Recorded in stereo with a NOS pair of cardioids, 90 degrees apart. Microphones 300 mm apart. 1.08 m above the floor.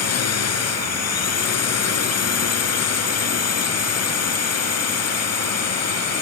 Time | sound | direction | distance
0.0 | a drone | 55° left | ?